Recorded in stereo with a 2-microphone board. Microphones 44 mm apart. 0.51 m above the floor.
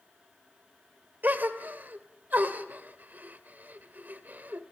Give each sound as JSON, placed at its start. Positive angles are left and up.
{"t": 1.2, "sound": "a gasp", "side_deg": -45, "distance_m": 1.9}